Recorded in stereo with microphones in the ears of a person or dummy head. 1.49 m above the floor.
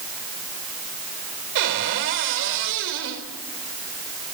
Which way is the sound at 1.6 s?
65° right (ahead or behind).